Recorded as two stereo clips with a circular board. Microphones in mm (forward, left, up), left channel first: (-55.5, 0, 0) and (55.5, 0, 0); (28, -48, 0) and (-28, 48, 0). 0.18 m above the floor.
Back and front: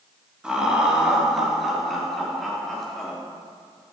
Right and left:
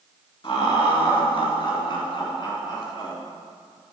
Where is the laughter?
80° right, 3 m; by 3.1 s 95° right, 4 m.